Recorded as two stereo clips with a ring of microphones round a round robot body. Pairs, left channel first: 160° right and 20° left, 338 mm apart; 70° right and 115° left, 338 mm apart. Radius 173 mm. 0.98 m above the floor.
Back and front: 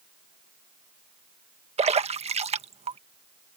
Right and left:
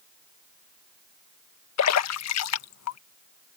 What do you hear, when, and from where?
1.8 s a splash: 45° right